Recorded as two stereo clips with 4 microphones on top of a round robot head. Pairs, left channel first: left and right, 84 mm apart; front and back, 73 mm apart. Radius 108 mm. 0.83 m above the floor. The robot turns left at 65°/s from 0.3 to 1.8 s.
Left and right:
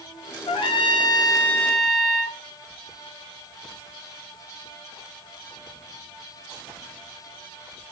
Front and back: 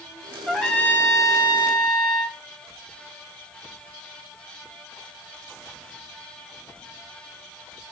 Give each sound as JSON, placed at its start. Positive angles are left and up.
{"t": 0.5, "sound": "a trumpet", "azimuth_deg": 95, "distance_m": 0.9}